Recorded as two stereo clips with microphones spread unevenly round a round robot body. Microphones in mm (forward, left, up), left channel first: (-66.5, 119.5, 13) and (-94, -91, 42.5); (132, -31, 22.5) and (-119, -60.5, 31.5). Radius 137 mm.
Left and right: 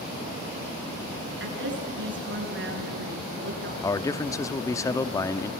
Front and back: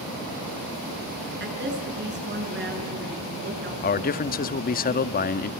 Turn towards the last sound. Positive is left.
turn(degrees=25)